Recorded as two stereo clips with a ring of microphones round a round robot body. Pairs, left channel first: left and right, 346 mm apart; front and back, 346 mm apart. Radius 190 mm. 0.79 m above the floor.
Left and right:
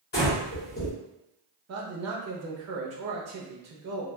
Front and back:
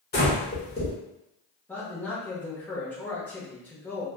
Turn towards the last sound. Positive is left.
turn(degrees=-85)